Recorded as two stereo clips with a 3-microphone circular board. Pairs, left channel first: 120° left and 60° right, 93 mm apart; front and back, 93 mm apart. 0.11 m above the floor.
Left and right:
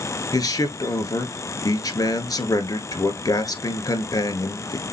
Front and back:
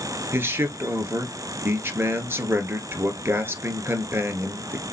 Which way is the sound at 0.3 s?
130° left.